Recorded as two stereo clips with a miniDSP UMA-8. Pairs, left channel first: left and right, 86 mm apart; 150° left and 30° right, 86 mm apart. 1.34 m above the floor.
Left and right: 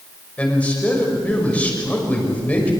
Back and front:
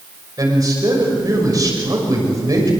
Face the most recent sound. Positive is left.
turn(degrees=15)